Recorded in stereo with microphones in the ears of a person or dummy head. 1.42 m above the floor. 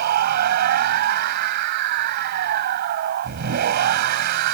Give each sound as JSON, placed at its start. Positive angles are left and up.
{"t": 0.0, "sound": "a machine running", "side_deg": -55}